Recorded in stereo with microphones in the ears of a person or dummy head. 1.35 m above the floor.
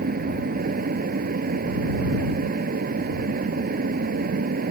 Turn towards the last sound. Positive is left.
turn(degrees=-40)  # may be behind; listen again after turning